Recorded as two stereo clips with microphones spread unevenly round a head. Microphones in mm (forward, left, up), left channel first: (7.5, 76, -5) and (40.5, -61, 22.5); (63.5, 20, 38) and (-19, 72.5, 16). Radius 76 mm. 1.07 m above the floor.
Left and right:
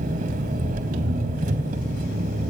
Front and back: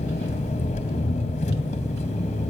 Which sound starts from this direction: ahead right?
An engine running, at 0.0 s.